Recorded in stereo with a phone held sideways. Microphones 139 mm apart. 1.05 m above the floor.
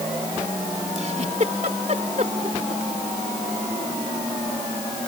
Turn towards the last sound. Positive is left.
turn(degrees=-55)  # may be behind; listen again after turning